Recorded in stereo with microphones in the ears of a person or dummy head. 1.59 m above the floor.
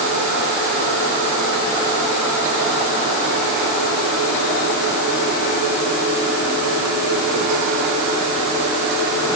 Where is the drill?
I don't hear a drill.